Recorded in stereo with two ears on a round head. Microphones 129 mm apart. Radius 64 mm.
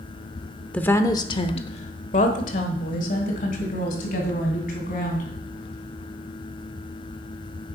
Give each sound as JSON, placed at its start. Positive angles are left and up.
{"t": 0.7, "sound": "a woman speaking", "side_deg": 10, "distance_m": 0.7}